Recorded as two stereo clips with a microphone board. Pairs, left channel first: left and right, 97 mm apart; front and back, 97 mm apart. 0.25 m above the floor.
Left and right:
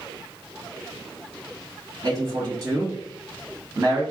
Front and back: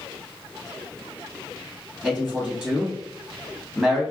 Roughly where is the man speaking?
Right.